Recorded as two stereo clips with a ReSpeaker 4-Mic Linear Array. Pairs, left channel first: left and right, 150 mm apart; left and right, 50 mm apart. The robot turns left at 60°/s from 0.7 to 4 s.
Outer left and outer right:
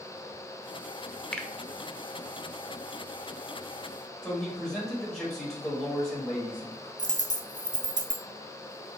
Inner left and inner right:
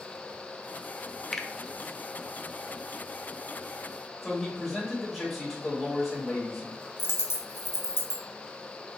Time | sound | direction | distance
1.3 | a finger snap | 5° left (ahead or behind) | 0.6 m
4.2 | a man speaking | centre (ahead or behind) | 1.9 m
7.0 | a dropped coin | 55° left (ahead or behind) | 0.7 m